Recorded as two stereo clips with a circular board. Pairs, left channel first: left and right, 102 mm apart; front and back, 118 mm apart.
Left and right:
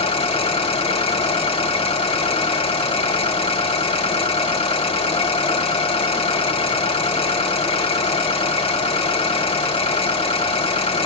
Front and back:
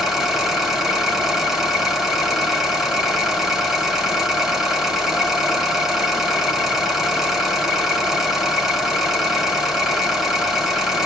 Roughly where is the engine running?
Left.